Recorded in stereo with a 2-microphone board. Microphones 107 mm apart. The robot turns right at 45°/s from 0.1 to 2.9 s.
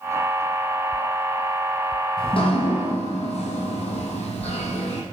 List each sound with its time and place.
2.2 s dripping: 50° left, 2 m; by 5.0 s 80° left, 2 m